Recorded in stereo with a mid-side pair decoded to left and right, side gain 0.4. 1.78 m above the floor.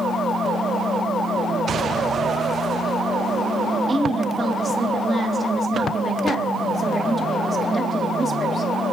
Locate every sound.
3.9 s a woman speaking: 40° right, 3.5 m